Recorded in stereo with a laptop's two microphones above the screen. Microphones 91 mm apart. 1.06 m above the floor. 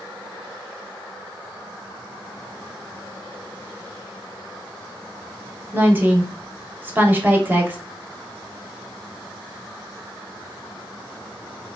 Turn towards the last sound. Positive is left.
turn(degrees=-20)  # may be behind; listen again after turning